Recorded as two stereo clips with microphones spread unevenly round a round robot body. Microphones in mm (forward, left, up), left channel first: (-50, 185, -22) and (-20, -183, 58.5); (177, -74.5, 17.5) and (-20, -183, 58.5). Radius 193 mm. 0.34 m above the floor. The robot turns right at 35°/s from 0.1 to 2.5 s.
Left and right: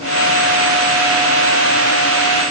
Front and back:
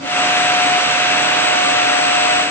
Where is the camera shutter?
I don't hear a camera shutter.